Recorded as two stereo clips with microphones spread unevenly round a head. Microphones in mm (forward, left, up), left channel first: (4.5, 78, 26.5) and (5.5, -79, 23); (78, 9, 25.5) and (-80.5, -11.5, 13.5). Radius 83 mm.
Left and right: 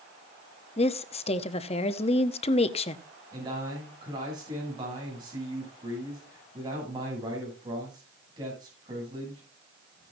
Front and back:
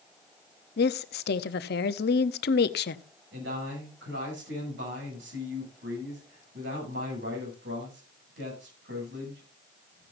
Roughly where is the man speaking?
Behind right.